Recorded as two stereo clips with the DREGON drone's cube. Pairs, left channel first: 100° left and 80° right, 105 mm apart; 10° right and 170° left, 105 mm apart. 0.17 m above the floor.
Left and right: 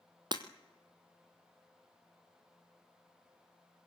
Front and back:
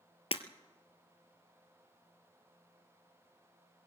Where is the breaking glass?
35° right, 1.4 m.